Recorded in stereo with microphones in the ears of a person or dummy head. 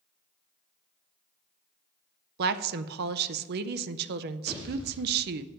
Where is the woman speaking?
55° right (ahead or behind), 0.6 m.